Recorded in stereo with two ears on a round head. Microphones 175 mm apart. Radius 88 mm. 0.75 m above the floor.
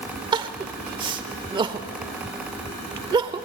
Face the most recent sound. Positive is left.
turn(degrees=-25)  # may be behind; listen again after turning